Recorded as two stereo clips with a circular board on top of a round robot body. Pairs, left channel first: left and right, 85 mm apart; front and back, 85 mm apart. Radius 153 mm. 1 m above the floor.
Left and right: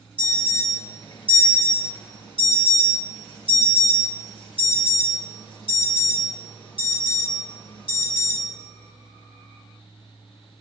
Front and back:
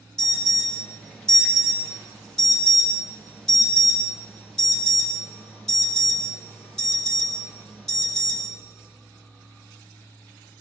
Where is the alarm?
80° left, 3.5 m.